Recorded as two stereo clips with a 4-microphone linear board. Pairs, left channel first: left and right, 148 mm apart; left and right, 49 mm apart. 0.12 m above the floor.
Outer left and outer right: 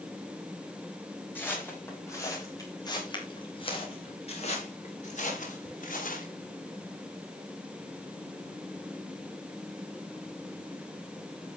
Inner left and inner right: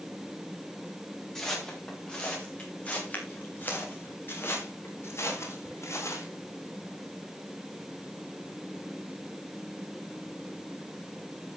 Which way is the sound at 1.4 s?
10° left (ahead or behind).